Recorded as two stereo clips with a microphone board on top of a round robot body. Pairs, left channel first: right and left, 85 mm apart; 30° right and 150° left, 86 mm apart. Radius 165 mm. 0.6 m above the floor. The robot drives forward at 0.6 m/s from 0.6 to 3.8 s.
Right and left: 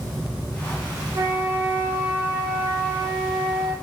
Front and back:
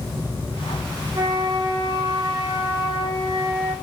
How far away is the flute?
About 1.1 m.